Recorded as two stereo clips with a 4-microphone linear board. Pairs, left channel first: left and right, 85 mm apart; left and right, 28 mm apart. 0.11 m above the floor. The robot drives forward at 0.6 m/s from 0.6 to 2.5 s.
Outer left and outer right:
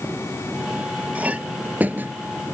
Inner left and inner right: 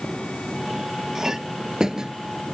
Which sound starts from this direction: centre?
A clink, at 1.1 s.